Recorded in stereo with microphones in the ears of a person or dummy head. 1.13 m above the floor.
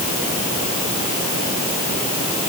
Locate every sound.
Only background noise.